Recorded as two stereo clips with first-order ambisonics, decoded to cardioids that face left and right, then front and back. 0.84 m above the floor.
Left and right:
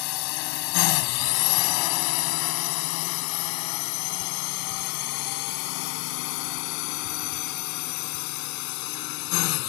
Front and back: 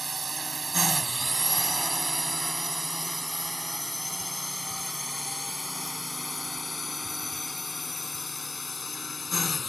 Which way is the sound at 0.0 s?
105° left.